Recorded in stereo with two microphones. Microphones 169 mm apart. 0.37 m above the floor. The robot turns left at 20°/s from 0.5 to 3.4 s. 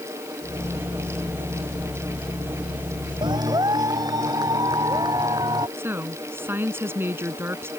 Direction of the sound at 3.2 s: 30° right (ahead or behind).